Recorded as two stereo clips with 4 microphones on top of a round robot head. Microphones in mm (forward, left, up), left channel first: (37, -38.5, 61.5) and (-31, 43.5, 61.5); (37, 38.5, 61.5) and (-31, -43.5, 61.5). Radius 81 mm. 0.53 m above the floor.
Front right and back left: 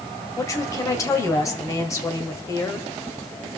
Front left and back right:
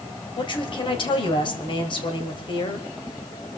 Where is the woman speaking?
10° left, 2.5 m.